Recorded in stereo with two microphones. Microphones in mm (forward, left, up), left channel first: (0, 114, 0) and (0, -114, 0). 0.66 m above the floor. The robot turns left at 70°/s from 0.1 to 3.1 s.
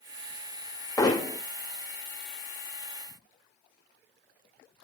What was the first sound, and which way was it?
Hammering, 15° left (ahead or behind).